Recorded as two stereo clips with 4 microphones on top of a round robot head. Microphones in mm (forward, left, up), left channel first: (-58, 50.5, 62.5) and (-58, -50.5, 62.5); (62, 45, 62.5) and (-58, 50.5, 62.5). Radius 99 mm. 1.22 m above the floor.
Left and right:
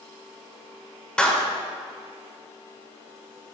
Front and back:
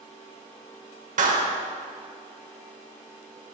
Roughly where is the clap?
Behind.